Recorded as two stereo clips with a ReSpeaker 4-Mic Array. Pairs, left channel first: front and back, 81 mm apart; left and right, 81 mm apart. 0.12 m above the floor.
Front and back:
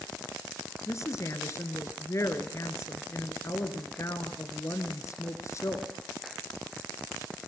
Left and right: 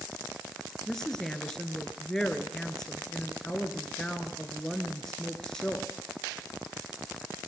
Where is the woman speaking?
10° left, 1.7 m.